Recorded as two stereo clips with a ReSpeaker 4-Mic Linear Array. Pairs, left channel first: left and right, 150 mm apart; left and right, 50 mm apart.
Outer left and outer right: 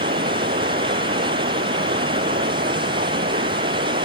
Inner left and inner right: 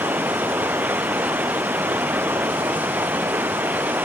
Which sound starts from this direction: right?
Running water, at 0.0 s.